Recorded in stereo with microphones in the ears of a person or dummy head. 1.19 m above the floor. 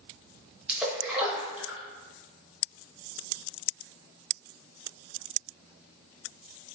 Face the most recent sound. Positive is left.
turn(degrees=0)  # may be behind; listen again after turning